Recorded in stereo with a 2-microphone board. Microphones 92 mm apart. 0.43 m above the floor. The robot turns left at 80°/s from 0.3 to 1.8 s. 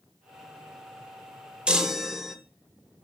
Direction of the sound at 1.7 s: 10° right (ahead or behind).